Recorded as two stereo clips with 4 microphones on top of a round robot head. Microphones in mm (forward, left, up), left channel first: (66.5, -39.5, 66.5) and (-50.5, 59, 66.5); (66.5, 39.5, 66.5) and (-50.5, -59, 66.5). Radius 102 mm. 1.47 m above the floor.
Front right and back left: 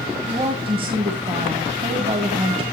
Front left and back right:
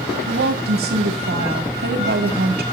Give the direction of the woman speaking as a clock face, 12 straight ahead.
5 o'clock.